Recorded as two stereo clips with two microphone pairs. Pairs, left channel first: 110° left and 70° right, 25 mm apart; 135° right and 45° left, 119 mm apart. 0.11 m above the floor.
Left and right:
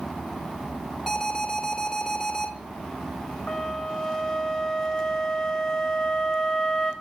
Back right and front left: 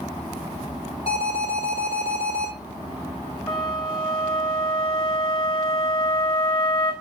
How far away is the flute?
About 3 m.